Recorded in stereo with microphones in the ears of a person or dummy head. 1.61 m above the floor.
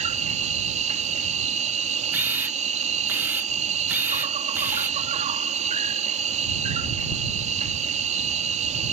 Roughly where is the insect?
Right.